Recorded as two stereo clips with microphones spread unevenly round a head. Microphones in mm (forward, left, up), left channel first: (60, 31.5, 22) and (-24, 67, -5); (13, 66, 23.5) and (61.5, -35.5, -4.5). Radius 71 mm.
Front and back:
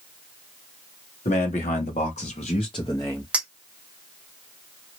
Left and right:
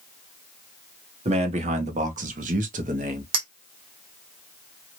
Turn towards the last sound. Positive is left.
turn(degrees=-110)